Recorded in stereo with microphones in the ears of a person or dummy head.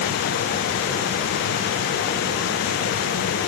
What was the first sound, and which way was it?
Only background noise.